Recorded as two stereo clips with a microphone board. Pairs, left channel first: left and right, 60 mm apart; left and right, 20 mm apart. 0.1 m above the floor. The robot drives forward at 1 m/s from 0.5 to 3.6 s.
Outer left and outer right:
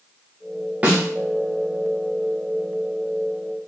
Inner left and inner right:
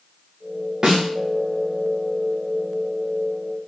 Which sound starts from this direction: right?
A snare drum, at 0.8 s.